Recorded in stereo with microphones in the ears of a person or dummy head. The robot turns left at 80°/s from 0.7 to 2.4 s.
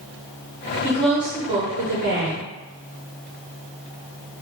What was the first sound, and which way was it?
A woman speaking, 20° left.